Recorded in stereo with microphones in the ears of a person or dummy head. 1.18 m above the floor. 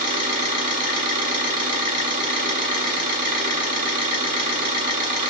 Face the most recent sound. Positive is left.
turn(degrees=-20)  # may be behind; listen again after turning